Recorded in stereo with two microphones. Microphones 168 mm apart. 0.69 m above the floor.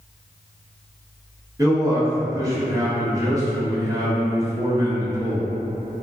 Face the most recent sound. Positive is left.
turn(degrees=-20)  # may be behind; listen again after turning